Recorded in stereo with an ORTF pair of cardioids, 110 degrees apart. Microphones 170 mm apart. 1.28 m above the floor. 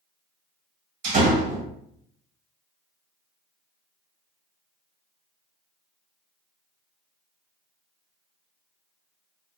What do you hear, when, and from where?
1.0 s a door slam: 45° right, 1.4 m